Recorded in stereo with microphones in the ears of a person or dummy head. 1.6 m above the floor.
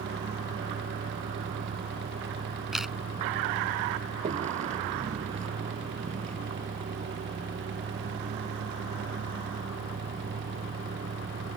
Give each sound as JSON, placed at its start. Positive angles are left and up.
{"t": 0.0, "sound": "a vehicle", "side_deg": -35}
{"t": 2.7, "sound": "a camera shutter", "side_deg": 0}